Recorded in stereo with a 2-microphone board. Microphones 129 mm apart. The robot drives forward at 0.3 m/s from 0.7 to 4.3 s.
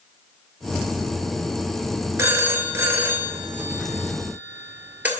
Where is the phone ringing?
20° right (ahead or behind), 0.7 m; by 5.1 s 15° right (ahead or behind), 1.1 m.